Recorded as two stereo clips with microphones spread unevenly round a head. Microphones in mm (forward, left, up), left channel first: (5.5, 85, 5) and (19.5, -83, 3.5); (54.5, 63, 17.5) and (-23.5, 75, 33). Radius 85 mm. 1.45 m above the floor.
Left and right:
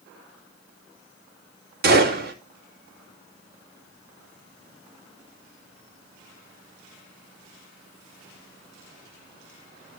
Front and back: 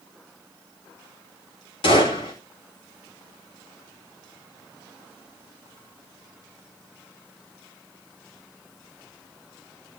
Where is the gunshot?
50° right, 3.5 m.